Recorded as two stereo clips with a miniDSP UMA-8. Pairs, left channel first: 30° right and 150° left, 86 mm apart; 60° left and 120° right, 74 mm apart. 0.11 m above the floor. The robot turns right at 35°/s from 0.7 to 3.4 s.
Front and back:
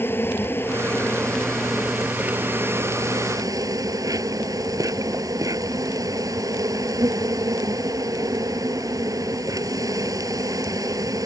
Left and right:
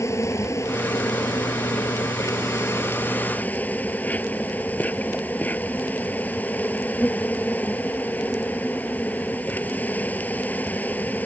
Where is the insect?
25° left; by 11.3 s 120° left.